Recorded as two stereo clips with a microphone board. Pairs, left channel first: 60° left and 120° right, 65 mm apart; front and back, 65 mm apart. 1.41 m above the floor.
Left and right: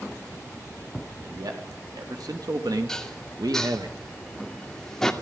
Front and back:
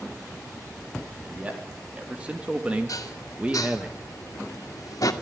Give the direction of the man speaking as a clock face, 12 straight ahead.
4 o'clock.